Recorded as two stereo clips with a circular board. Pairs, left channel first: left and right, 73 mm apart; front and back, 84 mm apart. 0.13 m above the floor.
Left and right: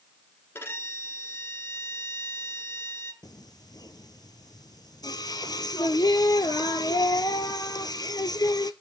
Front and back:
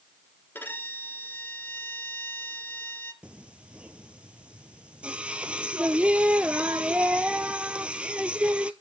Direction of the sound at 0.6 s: 55° left.